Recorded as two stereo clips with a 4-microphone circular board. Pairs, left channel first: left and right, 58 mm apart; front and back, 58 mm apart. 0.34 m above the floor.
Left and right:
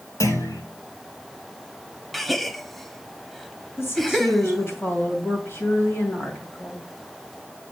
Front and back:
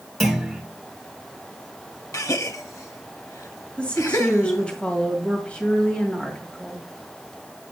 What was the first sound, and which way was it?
A clunk, 90° left.